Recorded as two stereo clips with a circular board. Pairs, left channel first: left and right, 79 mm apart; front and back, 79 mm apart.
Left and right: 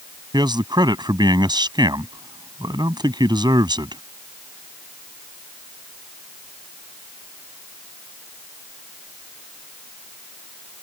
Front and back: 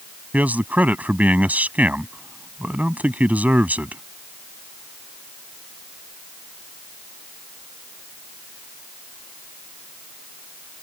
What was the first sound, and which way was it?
A man speaking, 110° right.